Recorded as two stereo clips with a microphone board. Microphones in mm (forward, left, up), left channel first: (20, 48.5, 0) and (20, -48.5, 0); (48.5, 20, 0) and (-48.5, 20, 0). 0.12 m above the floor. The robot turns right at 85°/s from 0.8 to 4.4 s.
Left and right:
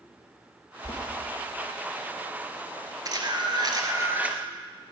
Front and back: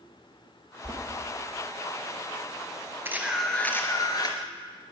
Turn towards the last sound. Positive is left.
turn(degrees=-5)